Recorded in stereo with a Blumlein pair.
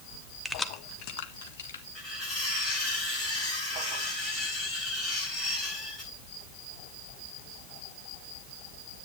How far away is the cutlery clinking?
About 10 m.